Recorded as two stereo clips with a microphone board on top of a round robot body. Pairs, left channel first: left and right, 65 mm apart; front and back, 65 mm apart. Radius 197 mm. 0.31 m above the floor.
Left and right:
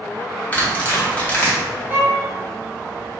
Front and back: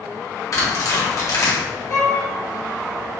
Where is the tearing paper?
25° left, 1.8 m.